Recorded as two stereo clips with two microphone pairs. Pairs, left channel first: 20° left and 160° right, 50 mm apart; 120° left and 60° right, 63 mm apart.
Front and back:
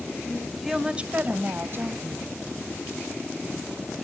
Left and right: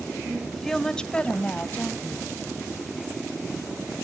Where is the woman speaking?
10° left, 0.9 m; by 2.3 s straight behind, 2 m.